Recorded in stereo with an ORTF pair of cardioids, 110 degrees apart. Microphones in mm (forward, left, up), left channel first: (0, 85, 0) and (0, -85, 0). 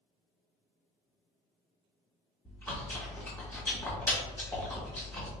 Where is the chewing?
15° left, 1.4 m.